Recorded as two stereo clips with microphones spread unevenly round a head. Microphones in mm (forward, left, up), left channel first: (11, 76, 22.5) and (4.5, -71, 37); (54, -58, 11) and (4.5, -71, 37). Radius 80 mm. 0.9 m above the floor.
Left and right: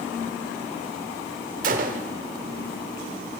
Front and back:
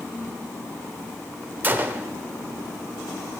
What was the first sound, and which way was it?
A gunshot, 130° right.